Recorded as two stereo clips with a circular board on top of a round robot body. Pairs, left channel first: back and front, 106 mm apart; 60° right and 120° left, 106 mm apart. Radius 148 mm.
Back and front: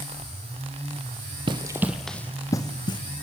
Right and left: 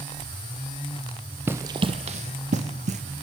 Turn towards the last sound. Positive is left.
turn(degrees=130)